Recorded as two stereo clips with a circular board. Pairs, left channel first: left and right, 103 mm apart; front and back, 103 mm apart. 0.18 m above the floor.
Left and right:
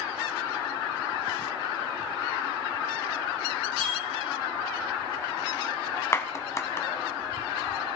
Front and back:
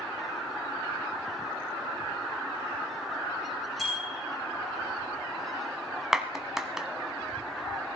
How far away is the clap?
About 0.9 m.